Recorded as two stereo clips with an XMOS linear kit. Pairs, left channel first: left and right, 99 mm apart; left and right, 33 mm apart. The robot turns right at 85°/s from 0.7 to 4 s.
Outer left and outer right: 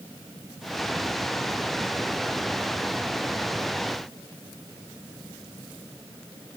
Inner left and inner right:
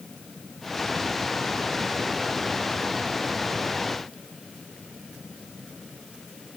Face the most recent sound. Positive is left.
No sound to turn to.